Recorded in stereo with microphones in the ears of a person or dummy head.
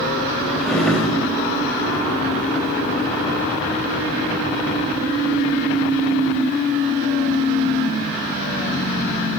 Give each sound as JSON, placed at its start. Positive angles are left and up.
{"t": 0.6, "sound": "a drawer", "side_deg": 5, "distance_m": 4.5}